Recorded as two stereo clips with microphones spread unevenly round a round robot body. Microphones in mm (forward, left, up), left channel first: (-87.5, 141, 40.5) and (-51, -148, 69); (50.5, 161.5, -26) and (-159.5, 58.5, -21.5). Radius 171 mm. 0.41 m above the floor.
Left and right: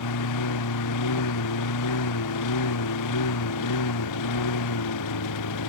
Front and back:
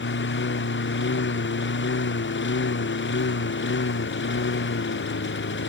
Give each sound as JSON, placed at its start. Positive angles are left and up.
{"t": 0.0, "sound": "a lawn mower", "azimuth_deg": 65}